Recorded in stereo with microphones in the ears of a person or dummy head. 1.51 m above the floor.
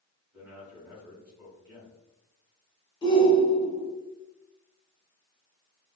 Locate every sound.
0.3 s a man speaking: 10° right (ahead or behind), 1.3 m
3.0 s a shout: 25° left (ahead or behind), 0.7 m